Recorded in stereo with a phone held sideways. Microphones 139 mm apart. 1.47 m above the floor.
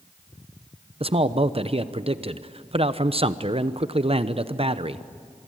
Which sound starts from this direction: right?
A man speaking, at 1.0 s.